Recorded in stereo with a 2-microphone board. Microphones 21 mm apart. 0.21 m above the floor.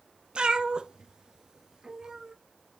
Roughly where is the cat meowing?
Right.